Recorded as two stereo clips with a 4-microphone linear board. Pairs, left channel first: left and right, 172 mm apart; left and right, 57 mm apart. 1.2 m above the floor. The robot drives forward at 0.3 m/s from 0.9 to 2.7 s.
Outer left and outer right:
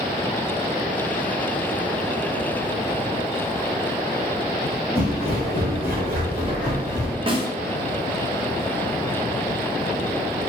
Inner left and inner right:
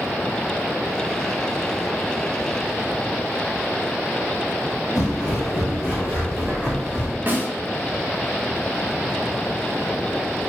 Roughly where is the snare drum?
Right.